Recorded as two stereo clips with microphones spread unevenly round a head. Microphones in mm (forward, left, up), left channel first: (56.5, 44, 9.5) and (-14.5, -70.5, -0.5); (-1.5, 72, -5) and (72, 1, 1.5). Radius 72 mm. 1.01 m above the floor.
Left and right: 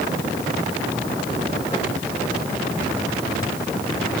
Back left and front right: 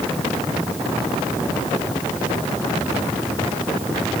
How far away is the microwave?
No microwave in this recording.